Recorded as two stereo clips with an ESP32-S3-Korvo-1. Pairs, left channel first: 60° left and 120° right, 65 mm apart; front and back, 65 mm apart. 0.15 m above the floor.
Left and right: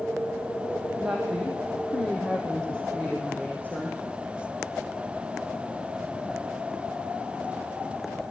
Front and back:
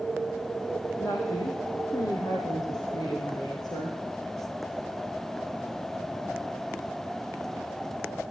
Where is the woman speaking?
40° right, 4.5 m; by 4.0 s 5° right, 6.5 m.